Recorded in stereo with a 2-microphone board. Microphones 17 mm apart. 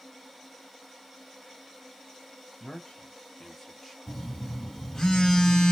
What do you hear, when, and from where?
2.6 s a man speaking: 50° left (ahead or behind), 1.2 m; by 4.0 s 5° left (ahead or behind), 1.3 m
4.1 s a phone buzzing: 40° left (ahead or behind), 1.5 m